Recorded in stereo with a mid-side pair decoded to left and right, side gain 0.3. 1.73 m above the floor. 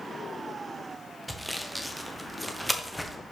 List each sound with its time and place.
1.3 s sawing: 10° right, 1.2 m